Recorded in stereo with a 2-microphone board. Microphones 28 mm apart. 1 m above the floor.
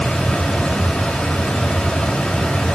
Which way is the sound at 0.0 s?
30° left (ahead or behind).